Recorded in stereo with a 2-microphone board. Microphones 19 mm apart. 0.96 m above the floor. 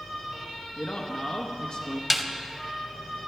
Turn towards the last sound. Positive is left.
turn(degrees=-10)  # may be behind; listen again after turning